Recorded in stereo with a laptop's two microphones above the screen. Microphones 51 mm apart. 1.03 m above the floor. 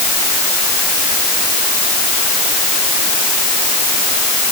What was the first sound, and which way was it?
Only background noise.